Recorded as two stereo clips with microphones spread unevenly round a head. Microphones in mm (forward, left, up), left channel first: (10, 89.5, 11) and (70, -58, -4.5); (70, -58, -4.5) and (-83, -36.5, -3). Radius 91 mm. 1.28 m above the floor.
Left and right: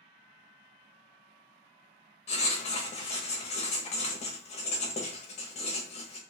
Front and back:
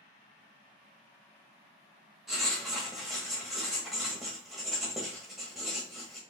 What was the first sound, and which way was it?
Writing, 85° left.